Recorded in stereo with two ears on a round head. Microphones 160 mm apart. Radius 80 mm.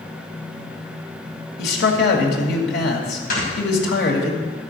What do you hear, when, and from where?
1.6 s a man speaking: 65° left (ahead or behind), 2.5 m
3.3 s snoring: 50° left (ahead or behind), 5 m